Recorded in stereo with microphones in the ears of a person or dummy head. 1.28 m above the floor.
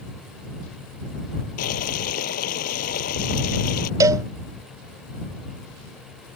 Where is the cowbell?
15° right (ahead or behind).